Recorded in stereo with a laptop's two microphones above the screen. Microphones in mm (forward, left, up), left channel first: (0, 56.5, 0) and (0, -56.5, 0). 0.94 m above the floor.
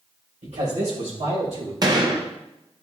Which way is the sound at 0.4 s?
70° right (ahead or behind).